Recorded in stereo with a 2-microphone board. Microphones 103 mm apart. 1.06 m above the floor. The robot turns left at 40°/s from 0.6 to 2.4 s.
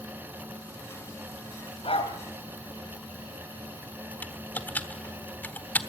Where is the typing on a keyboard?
20° left (ahead or behind), 1.1 m.